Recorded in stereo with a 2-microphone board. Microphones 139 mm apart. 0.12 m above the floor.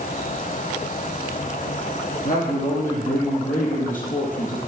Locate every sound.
2.2 s a man speaking: 70° left (ahead or behind), 4 m; by 4.6 s 65° left (ahead or behind), 3 m